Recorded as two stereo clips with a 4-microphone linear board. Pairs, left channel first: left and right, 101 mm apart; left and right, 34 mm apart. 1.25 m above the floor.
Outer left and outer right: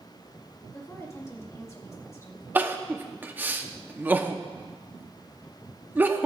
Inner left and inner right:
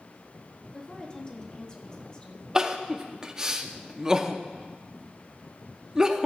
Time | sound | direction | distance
0.7 | a woman speaking | 30° left (ahead or behind) | 1.9 m
2.5 | crying | 20° right (ahead or behind) | 0.8 m